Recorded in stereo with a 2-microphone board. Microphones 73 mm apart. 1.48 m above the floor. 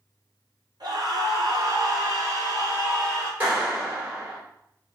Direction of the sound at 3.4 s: 25° right (ahead or behind).